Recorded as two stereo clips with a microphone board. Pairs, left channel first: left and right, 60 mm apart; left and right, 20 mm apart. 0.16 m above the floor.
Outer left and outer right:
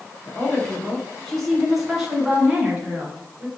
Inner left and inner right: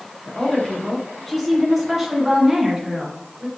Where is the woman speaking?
30° left (ahead or behind), 1.7 m; by 3.5 s 30° right (ahead or behind), 2 m.